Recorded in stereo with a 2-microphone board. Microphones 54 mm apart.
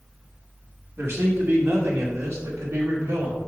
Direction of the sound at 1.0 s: 55° right (ahead or behind).